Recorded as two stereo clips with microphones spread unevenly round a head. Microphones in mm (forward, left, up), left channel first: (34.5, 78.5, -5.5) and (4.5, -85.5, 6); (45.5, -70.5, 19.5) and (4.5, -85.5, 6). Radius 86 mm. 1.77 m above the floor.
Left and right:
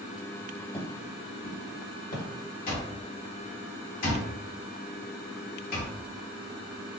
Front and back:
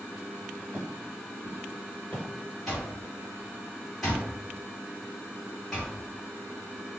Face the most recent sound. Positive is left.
turn(degrees=90)